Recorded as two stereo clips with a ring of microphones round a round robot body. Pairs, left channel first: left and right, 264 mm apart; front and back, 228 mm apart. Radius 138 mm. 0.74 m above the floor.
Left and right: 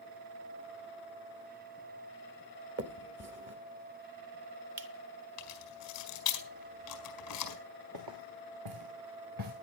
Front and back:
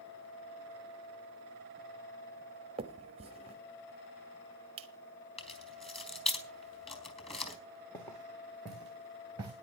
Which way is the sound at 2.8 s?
120° right.